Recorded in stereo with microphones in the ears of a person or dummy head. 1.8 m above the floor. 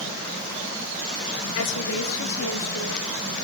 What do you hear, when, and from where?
1.6 s a woman speaking: 70° left (ahead or behind), 1.7 m; by 3.1 s 85° left, 4 m